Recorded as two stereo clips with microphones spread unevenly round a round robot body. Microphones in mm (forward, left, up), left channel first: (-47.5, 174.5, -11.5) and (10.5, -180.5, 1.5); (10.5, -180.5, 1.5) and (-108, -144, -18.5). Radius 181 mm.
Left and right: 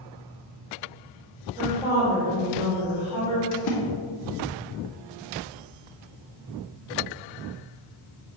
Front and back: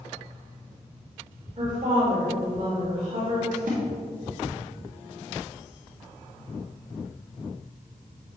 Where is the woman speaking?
160° right, 2.5 m.